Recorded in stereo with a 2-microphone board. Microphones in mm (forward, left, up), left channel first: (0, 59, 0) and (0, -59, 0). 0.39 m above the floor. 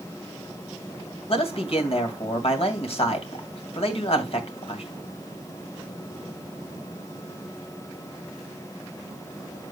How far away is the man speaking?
About 2.5 m.